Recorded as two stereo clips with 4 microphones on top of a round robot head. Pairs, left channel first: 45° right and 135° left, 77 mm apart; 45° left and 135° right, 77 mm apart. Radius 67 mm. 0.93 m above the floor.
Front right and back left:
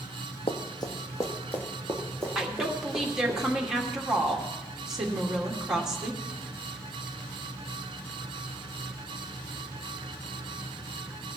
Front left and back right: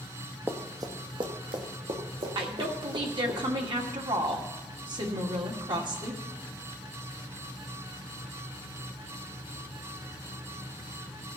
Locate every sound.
0.5 s running footsteps: 65° right, 1.4 m; by 3.4 s 135° right, 4.5 m
2.4 s a woman speaking: 145° right, 2 m